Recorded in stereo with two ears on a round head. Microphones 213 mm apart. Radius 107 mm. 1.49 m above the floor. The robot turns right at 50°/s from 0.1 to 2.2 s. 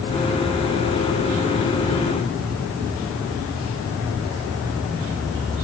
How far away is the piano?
I don't hear a piano.